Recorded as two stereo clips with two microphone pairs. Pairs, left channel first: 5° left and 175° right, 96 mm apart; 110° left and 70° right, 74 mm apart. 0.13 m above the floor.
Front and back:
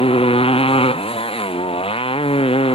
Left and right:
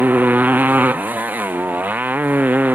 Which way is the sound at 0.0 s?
5° right.